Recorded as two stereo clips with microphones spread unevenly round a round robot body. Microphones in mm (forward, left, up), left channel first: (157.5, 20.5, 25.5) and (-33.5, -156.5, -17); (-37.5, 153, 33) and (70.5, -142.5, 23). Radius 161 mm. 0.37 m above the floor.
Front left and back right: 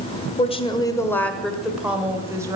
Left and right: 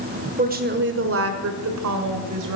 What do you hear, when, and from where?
0.4 s a woman speaking: 20° right, 1.2 m; by 2.6 s 65° right, 1.8 m